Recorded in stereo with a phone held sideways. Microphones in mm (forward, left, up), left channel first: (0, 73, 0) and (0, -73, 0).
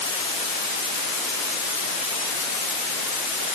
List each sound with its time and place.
Only background noise.